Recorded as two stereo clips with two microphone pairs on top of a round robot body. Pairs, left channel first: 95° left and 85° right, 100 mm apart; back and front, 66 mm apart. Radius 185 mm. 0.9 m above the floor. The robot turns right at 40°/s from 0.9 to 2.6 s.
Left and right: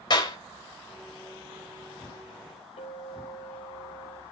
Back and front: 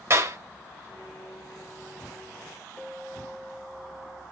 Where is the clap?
45° left, 3.5 m.